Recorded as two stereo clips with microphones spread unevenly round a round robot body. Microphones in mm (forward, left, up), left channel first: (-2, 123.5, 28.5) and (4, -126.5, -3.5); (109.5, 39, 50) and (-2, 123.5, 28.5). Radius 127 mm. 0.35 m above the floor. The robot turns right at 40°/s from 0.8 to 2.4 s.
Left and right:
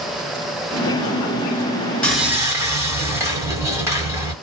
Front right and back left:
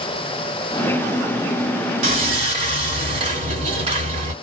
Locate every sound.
2.0 s sawing: straight behind, 1.0 m; by 4.3 s 165° right, 1.0 m